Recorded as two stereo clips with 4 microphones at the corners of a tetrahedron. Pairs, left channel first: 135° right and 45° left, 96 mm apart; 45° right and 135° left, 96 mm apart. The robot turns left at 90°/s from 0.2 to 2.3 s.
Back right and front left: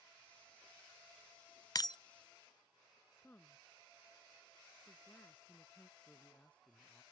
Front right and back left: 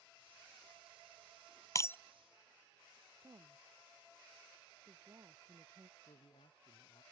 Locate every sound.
1.8 s breaking glass: 90° right; by 2.0 s 110° right
3.2 s a woman speaking: 165° left
6.0 s a man speaking: 55° right